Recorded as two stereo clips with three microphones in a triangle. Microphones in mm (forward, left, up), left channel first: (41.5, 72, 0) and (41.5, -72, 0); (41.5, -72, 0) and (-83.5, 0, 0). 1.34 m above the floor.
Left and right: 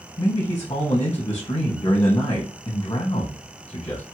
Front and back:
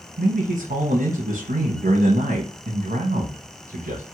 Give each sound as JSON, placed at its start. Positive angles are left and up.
{"t": 0.2, "sound": "a man speaking", "azimuth_deg": 150, "distance_m": 0.8}